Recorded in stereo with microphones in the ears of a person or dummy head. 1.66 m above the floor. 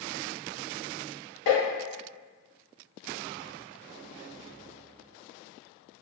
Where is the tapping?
70° left (ahead or behind), 1.2 m.